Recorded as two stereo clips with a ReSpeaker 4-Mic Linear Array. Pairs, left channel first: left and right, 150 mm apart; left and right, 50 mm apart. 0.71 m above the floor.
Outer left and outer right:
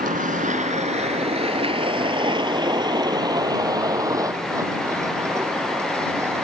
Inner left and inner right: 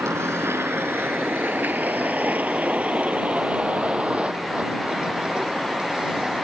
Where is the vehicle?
65° right (ahead or behind); by 6.4 s 15° right (ahead or behind).